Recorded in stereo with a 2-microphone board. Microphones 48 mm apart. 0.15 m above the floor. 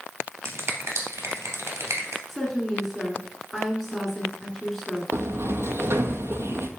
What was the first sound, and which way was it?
A finger snap, 65° right (ahead or behind).